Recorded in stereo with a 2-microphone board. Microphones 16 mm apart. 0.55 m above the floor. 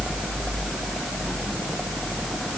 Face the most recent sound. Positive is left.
No sound to turn to.